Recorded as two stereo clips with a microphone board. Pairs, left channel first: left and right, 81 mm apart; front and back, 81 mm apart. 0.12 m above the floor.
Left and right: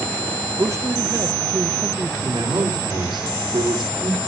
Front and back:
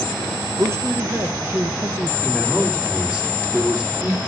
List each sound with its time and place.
0.6 s a man speaking: 130° right, 2.5 m
2.2 s a man speaking: 100° right, 6 m